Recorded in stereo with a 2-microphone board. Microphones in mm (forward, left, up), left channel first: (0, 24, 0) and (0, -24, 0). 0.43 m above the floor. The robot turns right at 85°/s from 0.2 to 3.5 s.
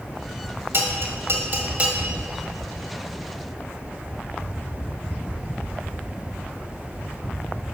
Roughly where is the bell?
Right.